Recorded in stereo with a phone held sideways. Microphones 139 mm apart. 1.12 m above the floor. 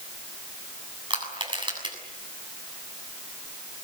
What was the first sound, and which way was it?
Crushing, 35° right (ahead or behind).